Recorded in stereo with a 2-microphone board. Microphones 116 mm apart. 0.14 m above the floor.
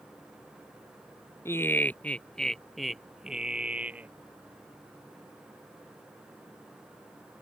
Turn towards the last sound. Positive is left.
turn(degrees=-15)  # may be behind; listen again after turning